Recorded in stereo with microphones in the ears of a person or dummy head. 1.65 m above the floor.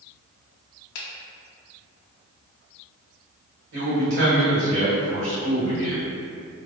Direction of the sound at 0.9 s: 65° left (ahead or behind).